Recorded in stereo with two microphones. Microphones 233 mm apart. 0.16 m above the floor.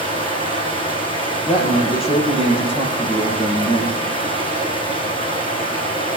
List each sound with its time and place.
0.0 s running water: 20° left (ahead or behind), 3.5 m
1.5 s a man speaking: 25° left (ahead or behind), 4.5 m